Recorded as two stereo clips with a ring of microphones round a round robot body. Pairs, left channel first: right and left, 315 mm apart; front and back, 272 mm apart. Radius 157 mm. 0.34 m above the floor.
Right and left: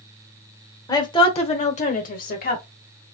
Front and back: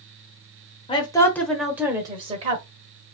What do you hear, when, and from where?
0.9 s a woman speaking: 30° right, 1.0 m; by 2.6 s 130° right, 1.2 m